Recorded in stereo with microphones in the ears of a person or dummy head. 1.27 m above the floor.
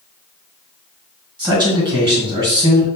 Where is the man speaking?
15° right (ahead or behind), 1.3 m.